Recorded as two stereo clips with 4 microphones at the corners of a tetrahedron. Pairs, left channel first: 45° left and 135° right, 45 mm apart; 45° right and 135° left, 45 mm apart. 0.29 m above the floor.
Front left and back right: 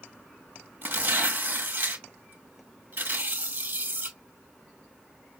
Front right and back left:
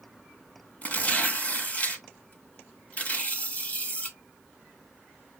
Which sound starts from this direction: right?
Tearing paper, at 0.8 s.